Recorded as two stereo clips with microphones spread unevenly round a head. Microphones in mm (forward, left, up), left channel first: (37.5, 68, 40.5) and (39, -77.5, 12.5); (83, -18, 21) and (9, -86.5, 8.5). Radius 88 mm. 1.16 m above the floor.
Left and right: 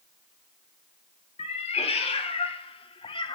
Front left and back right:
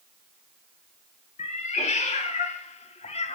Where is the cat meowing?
45° left, 2.5 m; by 3.4 s 35° left, 1.3 m.